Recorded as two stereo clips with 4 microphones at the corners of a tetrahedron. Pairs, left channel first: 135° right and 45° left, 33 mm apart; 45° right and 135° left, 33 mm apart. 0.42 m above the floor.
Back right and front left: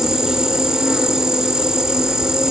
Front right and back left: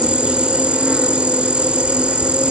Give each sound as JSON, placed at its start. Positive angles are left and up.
{"t": 0.0, "sound": "an insect", "azimuth_deg": 100, "distance_m": 1.3}